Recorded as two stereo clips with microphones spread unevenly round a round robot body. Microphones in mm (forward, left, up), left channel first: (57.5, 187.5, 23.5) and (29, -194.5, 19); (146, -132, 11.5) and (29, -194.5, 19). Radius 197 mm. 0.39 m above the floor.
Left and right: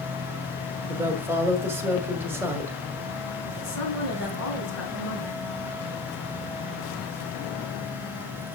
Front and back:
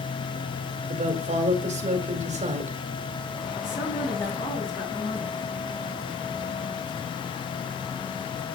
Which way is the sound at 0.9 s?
175° right.